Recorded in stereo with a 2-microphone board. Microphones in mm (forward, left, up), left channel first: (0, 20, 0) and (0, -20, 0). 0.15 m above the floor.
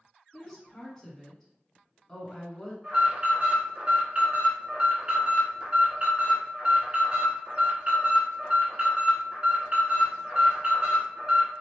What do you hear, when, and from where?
0.3 s a woman speaking: 15° left (ahead or behind), 1.3 m
2.8 s an alarm: 30° right (ahead or behind), 1.5 m